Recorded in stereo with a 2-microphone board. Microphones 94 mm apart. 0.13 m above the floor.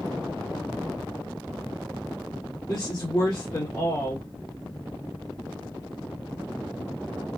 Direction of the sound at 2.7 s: 40° left (ahead or behind).